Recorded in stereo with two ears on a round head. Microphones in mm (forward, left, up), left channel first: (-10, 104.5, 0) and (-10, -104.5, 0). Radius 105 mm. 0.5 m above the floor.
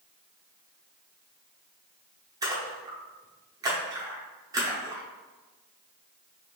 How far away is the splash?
About 0.9 m.